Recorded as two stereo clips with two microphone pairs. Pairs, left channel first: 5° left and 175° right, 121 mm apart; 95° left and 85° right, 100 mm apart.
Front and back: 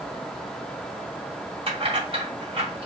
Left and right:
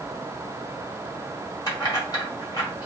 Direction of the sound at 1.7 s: 145° left.